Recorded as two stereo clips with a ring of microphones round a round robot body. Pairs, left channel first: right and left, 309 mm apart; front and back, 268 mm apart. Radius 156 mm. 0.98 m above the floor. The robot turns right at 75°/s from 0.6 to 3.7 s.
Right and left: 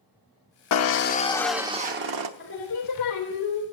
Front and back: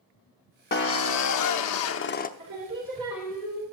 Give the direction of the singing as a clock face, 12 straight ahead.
5 o'clock.